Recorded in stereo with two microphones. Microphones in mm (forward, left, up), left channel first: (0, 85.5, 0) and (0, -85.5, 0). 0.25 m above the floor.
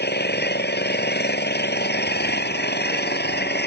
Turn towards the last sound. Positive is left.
turn(degrees=75)  # may be behind; listen again after turning